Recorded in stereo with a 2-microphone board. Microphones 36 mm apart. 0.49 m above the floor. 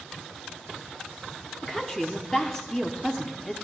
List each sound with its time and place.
1.6 s a woman speaking: 10° left (ahead or behind), 0.8 m